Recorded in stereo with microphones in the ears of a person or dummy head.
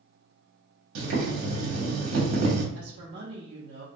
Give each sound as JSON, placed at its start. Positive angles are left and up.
{"t": 0.9, "sound": "boiling", "side_deg": -75, "distance_m": 0.9}
{"t": 2.8, "sound": "a woman speaking", "side_deg": -55, "distance_m": 0.6}